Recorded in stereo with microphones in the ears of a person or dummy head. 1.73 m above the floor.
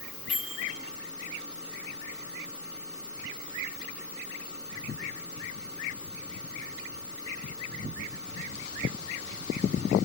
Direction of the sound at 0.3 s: Centre (ahead or behind).